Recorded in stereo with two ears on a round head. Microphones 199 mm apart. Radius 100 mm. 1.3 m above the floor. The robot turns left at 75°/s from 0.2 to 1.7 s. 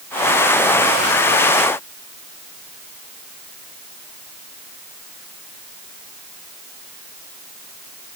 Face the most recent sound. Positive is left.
No sound to turn to.